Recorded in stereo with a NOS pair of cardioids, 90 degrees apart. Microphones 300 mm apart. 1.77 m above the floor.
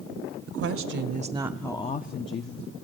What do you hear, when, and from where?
0.5 s a woman speaking: 60° right, 0.9 m; by 2.7 s 55° left, 1.0 m